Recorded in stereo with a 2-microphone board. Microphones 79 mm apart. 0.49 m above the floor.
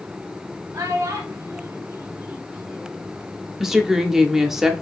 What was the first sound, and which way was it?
A child speaking, 45° right (ahead or behind).